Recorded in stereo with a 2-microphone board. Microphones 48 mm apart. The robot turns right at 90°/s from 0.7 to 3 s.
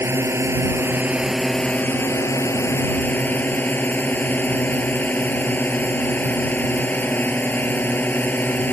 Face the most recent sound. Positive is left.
turn(degrees=140)